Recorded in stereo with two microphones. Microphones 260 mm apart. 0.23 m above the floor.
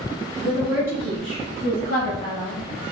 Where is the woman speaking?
10° left (ahead or behind), 1.1 m; by 2.6 s 45° right (ahead or behind), 2.0 m.